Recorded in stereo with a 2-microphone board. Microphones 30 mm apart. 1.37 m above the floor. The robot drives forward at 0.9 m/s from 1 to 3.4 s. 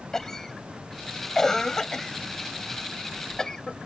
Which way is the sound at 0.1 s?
10° left (ahead or behind).